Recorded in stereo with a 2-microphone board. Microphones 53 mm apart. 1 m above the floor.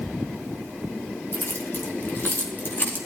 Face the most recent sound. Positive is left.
turn(degrees=35)  # may be behind; listen again after turning